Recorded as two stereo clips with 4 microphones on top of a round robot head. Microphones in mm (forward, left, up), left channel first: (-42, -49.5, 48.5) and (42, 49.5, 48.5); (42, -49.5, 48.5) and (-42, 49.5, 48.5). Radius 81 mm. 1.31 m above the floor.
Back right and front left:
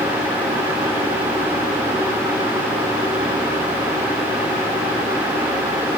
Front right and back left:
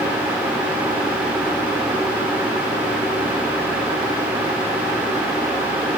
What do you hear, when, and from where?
Only background noise.